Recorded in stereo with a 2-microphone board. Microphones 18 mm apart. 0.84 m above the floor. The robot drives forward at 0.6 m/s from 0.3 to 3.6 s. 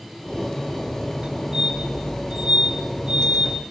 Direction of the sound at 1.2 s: 45° right (ahead or behind).